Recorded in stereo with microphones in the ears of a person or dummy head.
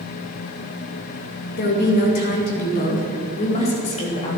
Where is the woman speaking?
55° left (ahead or behind), 2.5 m; by 4.4 s 30° left (ahead or behind), 3.5 m.